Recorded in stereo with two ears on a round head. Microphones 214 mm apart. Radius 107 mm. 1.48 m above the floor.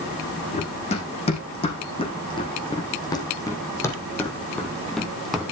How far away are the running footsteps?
About 5.5 m.